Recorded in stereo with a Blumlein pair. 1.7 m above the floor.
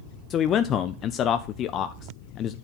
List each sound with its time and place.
0.3 s a man speaking: 30° left, 0.5 m